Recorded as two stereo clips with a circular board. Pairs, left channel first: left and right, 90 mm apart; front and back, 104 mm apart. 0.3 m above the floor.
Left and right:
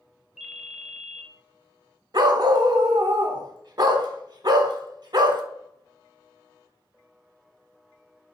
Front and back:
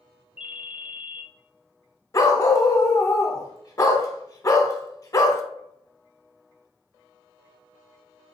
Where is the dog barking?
55° right, 0.5 m.